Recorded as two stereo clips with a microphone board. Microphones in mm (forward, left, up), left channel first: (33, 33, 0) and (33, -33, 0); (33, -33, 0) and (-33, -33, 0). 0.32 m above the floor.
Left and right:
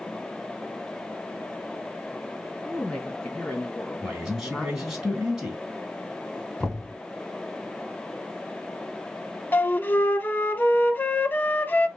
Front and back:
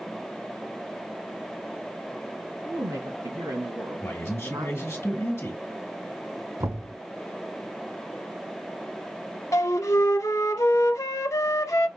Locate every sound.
2.6 s a woman speaking: 170° left, 3 m
4.0 s a man speaking: 20° right, 2.0 m
6.6 s knocking: 170° left, 2 m
9.5 s a flute: 30° left, 0.6 m